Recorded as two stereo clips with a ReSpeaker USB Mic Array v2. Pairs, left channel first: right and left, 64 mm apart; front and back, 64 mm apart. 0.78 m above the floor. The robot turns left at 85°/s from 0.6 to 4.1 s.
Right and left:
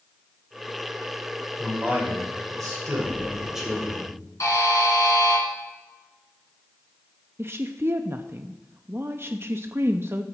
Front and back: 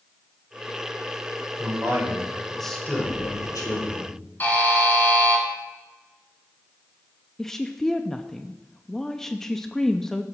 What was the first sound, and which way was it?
A man speaking, 175° left.